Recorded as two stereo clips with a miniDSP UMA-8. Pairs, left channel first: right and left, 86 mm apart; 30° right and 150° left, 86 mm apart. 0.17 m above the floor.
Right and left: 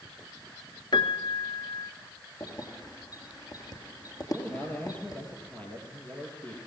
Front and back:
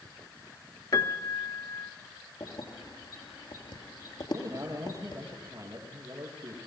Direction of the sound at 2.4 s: 50° right.